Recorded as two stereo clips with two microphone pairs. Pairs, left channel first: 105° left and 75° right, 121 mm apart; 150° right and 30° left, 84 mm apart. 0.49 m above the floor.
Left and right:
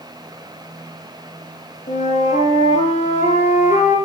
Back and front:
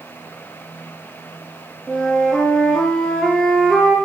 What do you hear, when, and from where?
1.9 s a flute: 120° left, 8.5 m